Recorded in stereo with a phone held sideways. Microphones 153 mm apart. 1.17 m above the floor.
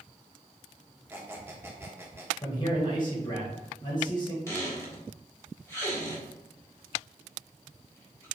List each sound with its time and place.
1.1 s a squeak: 15° right (ahead or behind), 0.9 m
2.4 s a man speaking: 30° left (ahead or behind), 1.6 m
4.5 s a squeak: 20° left (ahead or behind), 1.8 m